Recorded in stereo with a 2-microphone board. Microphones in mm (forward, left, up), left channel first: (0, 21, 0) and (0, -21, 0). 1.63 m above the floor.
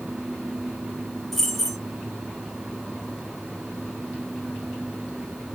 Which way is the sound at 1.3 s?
5° left (ahead or behind).